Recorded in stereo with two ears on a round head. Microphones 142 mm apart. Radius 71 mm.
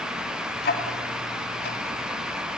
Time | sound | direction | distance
0.6 | ticking | 65° left (ahead or behind) | 3 m